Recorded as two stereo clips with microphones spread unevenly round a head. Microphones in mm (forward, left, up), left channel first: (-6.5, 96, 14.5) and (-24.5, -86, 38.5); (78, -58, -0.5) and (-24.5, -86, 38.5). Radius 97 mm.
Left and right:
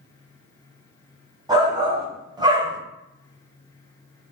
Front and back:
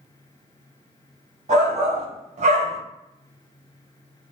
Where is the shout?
165° right, 1.6 m.